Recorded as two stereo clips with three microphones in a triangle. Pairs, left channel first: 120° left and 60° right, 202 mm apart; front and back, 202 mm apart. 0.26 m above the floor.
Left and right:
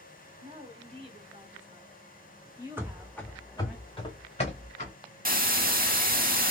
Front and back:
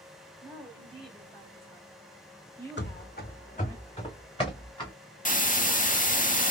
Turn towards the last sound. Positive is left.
turn(degrees=-35)